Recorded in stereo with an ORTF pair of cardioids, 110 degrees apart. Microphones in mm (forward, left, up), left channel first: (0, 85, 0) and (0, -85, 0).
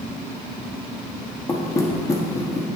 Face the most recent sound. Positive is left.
turn(degrees=20)